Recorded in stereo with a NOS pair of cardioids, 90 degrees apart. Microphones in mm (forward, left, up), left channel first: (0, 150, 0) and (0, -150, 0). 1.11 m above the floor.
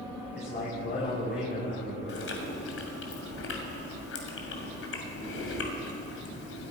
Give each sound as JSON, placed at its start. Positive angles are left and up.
{"t": 0.3, "sound": "a man speaking", "azimuth_deg": 35, "distance_m": 6.0}
{"t": 2.1, "sound": "chewing", "azimuth_deg": 45, "distance_m": 2.5}